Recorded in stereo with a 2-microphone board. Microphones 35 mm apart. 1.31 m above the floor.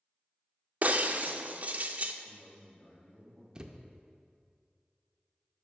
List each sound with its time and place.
0.8 s breaking glass: 45° right (ahead or behind), 0.5 m
2.2 s a man speaking: 55° left (ahead or behind), 3 m
3.5 s a thud: 25° right (ahead or behind), 0.6 m